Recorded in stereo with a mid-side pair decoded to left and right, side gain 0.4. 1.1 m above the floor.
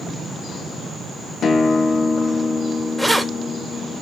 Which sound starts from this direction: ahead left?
A guitar, at 1.4 s.